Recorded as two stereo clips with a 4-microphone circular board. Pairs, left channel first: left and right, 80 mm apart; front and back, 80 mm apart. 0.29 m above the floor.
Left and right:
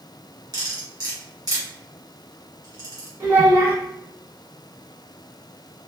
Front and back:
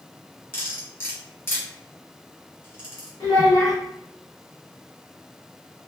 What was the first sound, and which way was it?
Cutlery clinking, 60° right.